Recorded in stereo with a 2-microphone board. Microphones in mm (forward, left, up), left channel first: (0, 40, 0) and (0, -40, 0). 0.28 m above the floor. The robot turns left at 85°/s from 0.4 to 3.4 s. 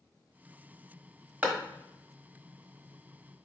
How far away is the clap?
About 1.2 m.